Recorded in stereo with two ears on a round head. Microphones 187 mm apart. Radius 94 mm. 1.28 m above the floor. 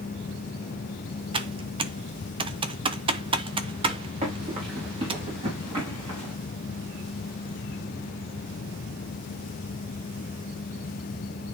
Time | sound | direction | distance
1.3 | typing on a keyboard | 25° right (ahead or behind) | 0.6 m
4.2 | running footsteps | 30° right (ahead or behind) | 5.5 m